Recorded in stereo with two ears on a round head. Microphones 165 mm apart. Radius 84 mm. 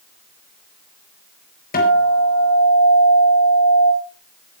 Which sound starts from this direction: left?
A guitar, at 1.7 s.